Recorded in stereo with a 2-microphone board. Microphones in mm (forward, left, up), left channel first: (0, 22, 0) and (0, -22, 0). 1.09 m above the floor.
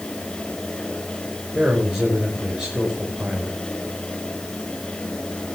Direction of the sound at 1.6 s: 15° right (ahead or behind).